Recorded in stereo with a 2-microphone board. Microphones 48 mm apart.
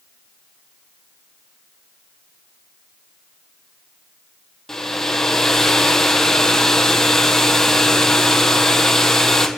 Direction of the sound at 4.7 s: 10° left (ahead or behind).